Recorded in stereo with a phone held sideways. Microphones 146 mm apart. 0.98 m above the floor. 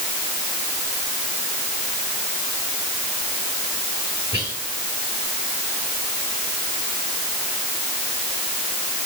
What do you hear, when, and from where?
4.3 s whispering: 20° right (ahead or behind), 5.5 m